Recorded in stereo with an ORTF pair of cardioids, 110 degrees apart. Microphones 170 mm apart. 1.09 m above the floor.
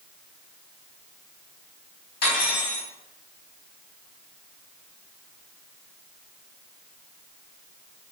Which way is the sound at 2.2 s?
70° left.